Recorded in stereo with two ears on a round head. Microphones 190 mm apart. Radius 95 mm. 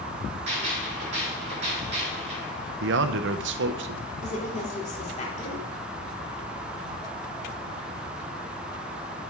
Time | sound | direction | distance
0.5 | a gunshot | 35° right (ahead or behind) | 3.5 m
2.8 | a man speaking | 60° right (ahead or behind) | 0.6 m
4.2 | a woman speaking | 35° left (ahead or behind) | 2.5 m